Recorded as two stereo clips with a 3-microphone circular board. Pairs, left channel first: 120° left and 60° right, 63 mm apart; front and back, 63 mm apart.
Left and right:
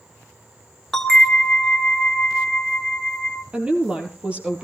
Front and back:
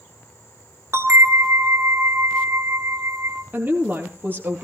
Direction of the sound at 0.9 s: 160° right.